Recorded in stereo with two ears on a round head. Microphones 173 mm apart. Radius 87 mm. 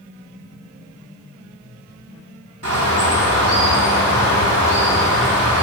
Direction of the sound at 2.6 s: 70° right (ahead or behind).